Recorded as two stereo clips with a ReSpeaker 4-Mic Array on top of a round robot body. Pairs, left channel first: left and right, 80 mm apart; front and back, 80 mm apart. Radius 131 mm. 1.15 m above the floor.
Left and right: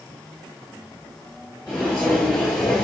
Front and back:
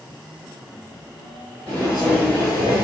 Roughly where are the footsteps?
Behind right.